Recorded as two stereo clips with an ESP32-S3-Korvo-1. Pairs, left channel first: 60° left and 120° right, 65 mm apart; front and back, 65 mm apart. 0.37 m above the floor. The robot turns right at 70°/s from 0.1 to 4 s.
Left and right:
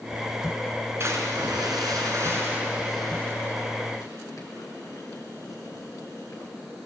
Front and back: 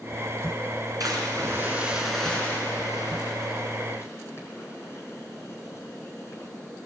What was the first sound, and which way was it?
A splash, 165° right.